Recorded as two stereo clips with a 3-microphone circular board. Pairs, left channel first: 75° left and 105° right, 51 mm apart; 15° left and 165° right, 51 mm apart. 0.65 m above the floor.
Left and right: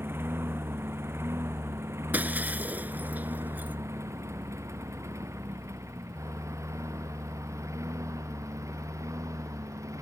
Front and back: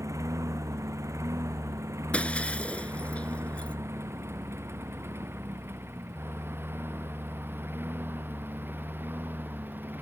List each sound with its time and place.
0.0 s a lawn mower: 145° right; by 10.0 s 115° right
2.1 s breaking glass: 50° right